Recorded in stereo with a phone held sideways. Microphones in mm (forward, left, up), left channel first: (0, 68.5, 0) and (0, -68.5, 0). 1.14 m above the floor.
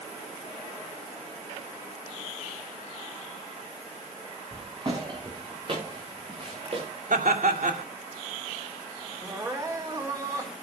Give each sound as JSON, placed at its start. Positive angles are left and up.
{"t": 4.5, "sound": "footsteps", "side_deg": -35, "distance_m": 6.5}
{"t": 7.1, "sound": "laughter", "side_deg": -75, "distance_m": 2.5}
{"t": 9.2, "sound": "crying", "side_deg": -25, "distance_m": 3.5}